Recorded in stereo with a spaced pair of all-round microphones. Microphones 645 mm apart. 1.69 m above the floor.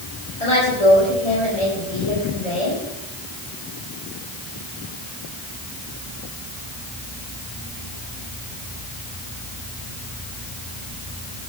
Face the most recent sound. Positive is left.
turn(degrees=70)  # may be behind; listen again after turning